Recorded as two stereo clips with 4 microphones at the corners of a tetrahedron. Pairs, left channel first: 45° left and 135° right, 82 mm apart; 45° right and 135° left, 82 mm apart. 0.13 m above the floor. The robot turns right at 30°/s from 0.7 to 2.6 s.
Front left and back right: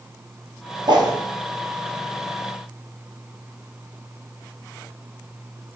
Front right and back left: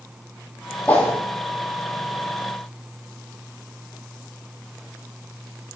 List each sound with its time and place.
0.9 s a whoosh: 115° right, 0.9 m; by 1.1 s 110° right, 0.9 m